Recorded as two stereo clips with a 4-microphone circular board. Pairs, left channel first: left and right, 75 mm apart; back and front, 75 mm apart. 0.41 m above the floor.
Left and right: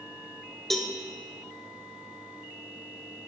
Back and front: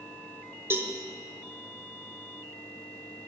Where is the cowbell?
5° left, 1.1 m.